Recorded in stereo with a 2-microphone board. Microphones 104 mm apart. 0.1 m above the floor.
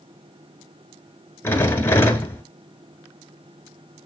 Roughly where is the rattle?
Left.